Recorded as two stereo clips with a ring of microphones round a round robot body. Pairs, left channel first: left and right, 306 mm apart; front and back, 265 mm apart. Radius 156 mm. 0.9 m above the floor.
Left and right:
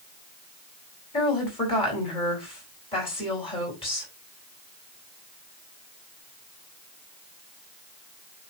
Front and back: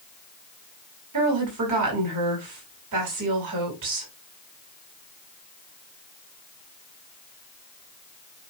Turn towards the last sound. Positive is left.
turn(degrees=165)